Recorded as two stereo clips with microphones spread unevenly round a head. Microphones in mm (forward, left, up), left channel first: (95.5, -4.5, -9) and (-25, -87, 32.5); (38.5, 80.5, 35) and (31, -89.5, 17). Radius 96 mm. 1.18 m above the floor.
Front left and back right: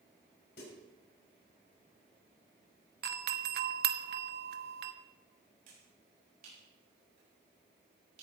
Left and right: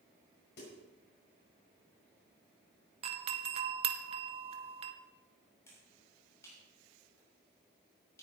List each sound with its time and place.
0.6 s a snare drum: 65° left, 6 m
3.0 s a doorbell: 140° right, 0.9 m
5.7 s a finger snap: 165° left, 6.5 m